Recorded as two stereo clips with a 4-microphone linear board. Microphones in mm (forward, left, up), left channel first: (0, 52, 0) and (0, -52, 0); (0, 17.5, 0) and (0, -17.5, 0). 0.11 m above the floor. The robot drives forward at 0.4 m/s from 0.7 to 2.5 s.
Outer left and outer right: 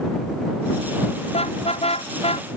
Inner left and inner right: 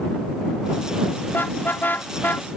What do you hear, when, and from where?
1.3 s a car horn: 70° left (ahead or behind); by 2.6 s 65° left (ahead or behind)